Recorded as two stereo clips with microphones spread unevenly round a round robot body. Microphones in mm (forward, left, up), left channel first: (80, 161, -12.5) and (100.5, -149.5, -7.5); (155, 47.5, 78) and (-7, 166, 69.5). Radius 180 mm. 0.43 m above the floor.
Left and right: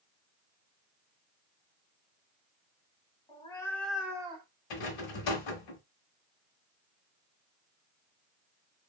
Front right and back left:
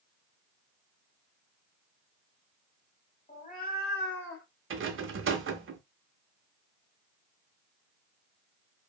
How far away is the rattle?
About 0.6 m.